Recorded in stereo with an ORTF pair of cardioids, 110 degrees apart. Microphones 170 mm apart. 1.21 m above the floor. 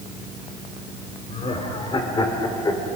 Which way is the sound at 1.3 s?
40° left.